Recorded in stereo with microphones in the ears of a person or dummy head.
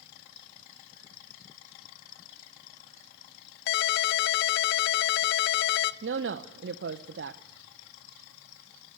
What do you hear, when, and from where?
3.7 s a ringtone: 65° left (ahead or behind), 0.6 m
6.0 s a woman speaking: 60° right (ahead or behind), 1.0 m